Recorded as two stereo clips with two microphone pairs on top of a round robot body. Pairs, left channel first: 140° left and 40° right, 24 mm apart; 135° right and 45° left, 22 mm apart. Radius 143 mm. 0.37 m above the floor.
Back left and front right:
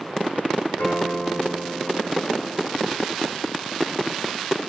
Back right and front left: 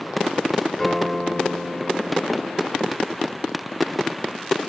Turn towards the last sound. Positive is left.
turn(degrees=140)